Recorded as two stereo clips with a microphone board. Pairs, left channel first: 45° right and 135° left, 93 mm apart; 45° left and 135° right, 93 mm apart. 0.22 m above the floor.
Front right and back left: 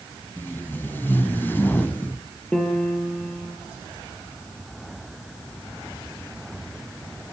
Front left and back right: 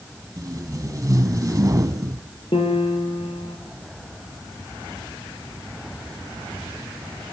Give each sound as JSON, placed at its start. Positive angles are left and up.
{"t": 0.4, "sound": "tape being pulled", "azimuth_deg": -105, "distance_m": 1.3}
{"t": 2.5, "sound": "a piano", "azimuth_deg": 35, "distance_m": 5.5}